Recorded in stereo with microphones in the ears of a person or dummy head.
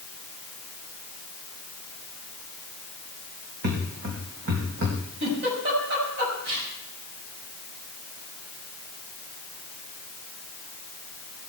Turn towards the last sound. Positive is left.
turn(degrees=-65)  # may be behind; listen again after turning